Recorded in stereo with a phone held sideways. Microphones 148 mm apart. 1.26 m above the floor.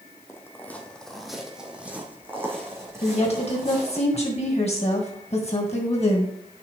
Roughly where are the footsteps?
Centre.